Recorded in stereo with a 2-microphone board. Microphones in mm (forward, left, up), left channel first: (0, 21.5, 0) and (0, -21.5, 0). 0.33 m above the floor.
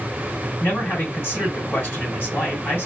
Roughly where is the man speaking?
Left.